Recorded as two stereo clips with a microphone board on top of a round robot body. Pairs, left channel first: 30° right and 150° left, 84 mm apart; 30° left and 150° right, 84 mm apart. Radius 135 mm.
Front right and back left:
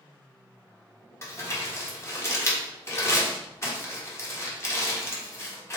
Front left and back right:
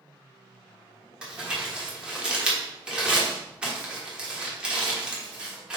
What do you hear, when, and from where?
1.2 s crumpling: 75° right, 1.6 m